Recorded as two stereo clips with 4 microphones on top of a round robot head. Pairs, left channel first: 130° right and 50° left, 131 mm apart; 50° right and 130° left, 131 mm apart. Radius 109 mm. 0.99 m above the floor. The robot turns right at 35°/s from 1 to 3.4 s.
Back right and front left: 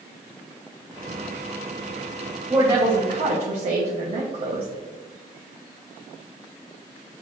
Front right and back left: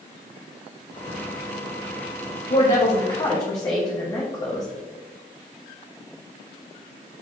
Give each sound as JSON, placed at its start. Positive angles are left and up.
{"t": 2.5, "sound": "a woman speaking", "azimuth_deg": -15, "distance_m": 1.3}